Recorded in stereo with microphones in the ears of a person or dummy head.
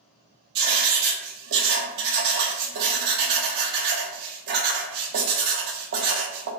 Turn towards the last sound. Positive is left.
turn(degrees=-60)  # may be behind; listen again after turning